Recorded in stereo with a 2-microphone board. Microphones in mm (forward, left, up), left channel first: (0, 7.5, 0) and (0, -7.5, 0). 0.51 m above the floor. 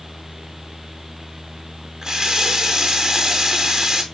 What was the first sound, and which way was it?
A running tap, 40° right (ahead or behind).